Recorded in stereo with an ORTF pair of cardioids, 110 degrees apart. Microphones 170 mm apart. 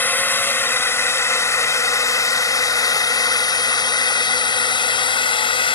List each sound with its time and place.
0.0 s a drone: 10° left; by 5.8 s 30° left